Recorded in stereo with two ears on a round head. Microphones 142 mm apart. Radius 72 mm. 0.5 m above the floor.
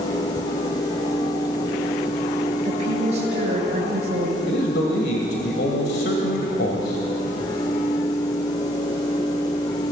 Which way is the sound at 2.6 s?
45° right (ahead or behind).